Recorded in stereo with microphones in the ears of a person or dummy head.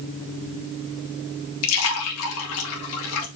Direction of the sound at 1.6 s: 75° left (ahead or behind).